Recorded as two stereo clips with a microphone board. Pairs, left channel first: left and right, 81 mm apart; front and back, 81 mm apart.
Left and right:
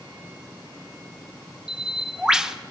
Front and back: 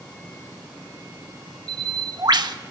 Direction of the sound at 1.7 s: 170° right.